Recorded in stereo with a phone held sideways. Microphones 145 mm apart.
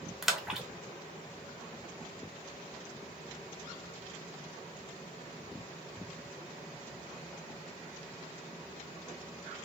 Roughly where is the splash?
Centre.